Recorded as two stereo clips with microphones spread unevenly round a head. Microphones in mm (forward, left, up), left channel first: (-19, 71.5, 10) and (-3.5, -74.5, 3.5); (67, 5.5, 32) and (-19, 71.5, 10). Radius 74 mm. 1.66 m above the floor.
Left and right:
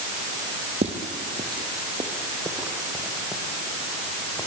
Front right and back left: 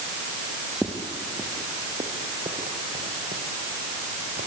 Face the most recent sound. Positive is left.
turn(degrees=175)